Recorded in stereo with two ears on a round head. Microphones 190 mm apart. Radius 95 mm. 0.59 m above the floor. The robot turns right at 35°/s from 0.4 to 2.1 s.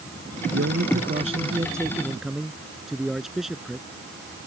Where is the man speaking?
55° right; by 3.9 s straight ahead.